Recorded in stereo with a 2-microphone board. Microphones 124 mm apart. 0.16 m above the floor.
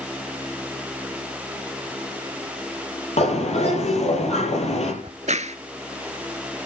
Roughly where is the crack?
Right.